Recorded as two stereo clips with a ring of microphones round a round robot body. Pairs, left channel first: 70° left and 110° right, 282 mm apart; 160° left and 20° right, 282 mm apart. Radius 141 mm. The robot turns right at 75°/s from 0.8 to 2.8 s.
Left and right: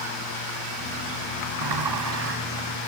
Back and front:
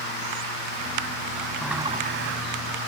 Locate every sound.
1.6 s a sliding door: 115° right; by 2.4 s 60° right